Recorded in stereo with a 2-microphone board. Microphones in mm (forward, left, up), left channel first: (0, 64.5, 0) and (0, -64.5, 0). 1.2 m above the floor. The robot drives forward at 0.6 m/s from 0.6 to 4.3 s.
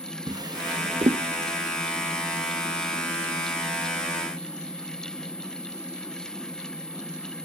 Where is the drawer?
30° right (ahead or behind), 0.6 m; by 1.2 s 40° right (ahead or behind), 0.5 m.